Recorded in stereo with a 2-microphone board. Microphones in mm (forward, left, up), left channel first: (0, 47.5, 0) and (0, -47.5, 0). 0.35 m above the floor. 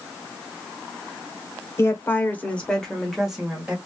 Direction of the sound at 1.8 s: 30° left (ahead or behind).